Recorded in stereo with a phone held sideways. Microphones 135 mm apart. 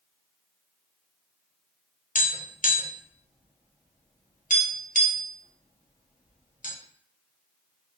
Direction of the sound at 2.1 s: 75° left (ahead or behind).